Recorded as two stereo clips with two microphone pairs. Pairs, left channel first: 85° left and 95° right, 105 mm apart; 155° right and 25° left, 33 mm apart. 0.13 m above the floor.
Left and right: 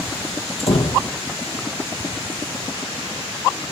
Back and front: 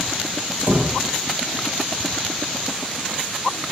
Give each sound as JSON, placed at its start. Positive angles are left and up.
{"t": 0.6, "sound": "a door slam", "azimuth_deg": 70, "distance_m": 2.5}